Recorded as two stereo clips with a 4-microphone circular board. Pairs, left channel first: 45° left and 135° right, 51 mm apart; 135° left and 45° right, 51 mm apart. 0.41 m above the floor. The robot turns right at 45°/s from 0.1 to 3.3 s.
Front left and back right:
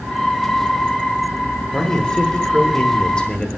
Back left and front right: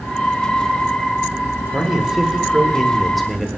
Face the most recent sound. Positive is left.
turn(degrees=60)